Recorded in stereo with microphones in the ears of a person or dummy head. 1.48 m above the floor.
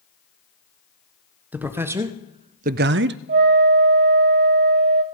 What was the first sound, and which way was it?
A man speaking, 10° right (ahead or behind).